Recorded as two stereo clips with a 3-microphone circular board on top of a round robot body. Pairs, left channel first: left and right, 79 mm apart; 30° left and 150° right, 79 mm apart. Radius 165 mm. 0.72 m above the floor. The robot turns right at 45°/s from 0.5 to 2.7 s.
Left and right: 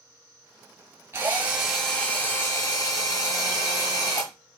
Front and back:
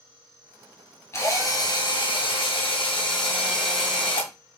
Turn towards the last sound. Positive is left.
turn(degrees=40)